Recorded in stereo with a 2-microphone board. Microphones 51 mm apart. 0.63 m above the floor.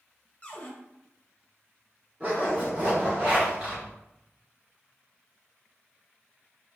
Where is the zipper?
30° right (ahead or behind), 1.7 m.